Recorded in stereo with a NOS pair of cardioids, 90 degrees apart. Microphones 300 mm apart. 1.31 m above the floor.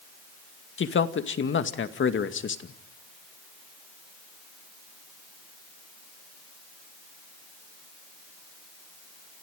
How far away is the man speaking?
About 2 m.